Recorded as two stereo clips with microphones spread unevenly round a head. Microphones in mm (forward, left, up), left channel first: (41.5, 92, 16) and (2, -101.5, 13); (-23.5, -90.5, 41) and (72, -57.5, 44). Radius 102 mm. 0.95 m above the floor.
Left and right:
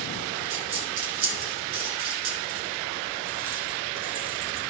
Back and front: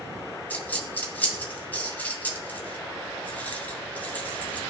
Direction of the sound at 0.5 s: 85° right.